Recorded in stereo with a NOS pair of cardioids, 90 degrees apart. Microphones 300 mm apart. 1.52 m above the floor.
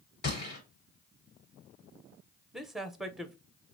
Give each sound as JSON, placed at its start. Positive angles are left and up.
{"t": 0.2, "sound": "a gunshot", "azimuth_deg": 30, "distance_m": 3.5}
{"t": 2.5, "sound": "a man speaking", "azimuth_deg": 0, "distance_m": 0.9}